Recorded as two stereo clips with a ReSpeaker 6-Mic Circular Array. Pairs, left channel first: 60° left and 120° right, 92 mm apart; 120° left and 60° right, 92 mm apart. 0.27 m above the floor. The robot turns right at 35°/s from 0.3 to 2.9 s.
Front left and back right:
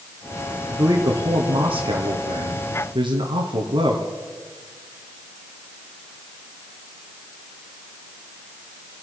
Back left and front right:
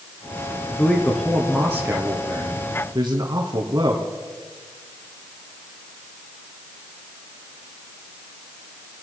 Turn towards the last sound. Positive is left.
turn(degrees=-105)